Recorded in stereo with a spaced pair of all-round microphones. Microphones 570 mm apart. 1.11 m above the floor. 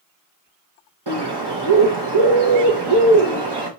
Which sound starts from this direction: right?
A bird, at 1.1 s.